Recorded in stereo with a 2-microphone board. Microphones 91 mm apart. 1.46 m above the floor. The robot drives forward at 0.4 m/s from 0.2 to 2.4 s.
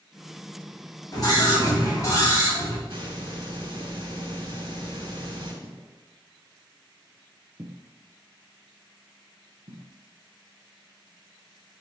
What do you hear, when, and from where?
1.1 s a scream: 45° left (ahead or behind), 2.5 m; by 2.8 s 40° left (ahead or behind), 3 m
2.9 s a hiss: 75° right (ahead or behind), 2.5 m
5.6 s footsteps: 25° left (ahead or behind), 1.5 m; by 9.8 s 60° right (ahead or behind), 3 m